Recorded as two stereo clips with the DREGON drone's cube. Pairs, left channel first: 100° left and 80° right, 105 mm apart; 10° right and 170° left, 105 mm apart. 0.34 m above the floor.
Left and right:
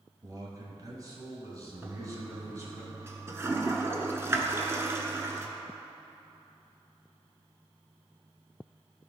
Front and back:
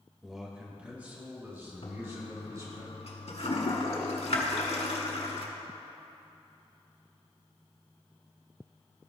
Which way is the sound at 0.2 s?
105° right.